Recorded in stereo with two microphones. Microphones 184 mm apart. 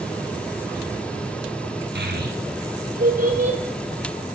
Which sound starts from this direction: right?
A child speaking, at 1.9 s.